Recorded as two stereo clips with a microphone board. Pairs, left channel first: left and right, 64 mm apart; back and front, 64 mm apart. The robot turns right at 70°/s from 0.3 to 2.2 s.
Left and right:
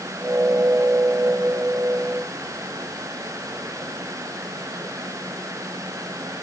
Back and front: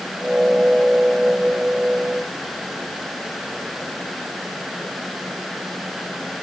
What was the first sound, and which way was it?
Only background noise.